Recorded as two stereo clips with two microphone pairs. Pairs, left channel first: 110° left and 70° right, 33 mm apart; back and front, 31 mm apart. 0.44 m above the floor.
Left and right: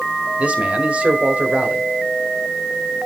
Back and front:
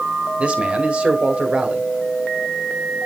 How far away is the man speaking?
About 1.6 m.